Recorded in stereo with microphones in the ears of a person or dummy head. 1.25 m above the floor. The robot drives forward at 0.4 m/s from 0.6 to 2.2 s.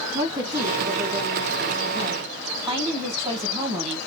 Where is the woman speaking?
5° right (ahead or behind), 1.5 m; by 4.0 s 15° right (ahead or behind), 0.8 m.